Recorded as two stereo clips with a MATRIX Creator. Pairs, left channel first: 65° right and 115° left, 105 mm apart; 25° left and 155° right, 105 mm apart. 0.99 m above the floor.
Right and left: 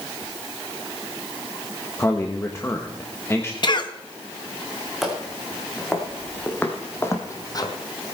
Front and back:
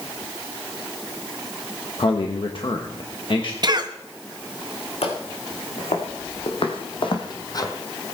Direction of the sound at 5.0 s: 25° left.